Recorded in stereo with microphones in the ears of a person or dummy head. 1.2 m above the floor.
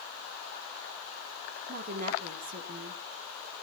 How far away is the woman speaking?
About 3 m.